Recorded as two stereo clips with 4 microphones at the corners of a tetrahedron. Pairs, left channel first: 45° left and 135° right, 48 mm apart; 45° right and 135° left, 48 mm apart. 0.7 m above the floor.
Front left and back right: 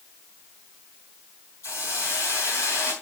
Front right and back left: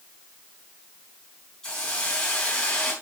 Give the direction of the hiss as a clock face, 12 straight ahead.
11 o'clock.